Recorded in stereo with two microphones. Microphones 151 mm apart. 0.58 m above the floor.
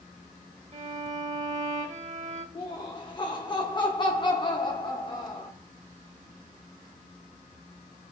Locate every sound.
0.7 s a violin: 55° right (ahead or behind), 0.7 m
2.5 s laughter: 30° left (ahead or behind), 0.9 m